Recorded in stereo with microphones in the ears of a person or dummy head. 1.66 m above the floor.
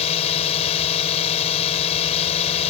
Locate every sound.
0.0 s a drone: 35° left (ahead or behind)